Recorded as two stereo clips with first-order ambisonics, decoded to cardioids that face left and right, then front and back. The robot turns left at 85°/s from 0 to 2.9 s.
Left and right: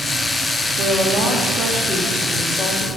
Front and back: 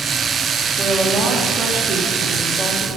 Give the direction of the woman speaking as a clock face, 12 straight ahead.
3 o'clock.